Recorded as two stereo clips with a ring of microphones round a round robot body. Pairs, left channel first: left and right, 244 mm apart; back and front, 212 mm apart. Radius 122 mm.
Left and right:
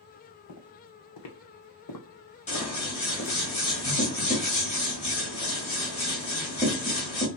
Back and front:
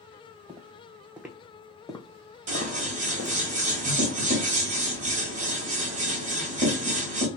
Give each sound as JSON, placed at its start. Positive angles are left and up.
{"t": 0.5, "sound": "footsteps", "azimuth_deg": 70, "distance_m": 1.3}
{"t": 2.5, "sound": "scissors", "azimuth_deg": 35, "distance_m": 1.5}